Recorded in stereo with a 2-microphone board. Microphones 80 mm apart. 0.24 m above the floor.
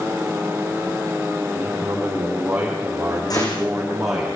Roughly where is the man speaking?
Centre.